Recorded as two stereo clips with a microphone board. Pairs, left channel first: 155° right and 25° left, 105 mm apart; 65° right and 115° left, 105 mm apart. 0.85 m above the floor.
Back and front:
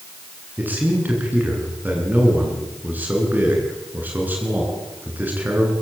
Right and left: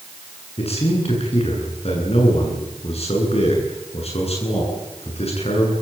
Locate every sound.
0.6 s a man speaking: 50° right, 10 m